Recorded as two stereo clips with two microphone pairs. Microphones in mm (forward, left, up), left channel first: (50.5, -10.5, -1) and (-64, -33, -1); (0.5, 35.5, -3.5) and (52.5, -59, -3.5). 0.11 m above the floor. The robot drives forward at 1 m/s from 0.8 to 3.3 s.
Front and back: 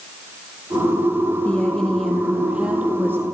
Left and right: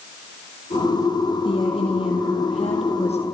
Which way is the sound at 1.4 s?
90° left.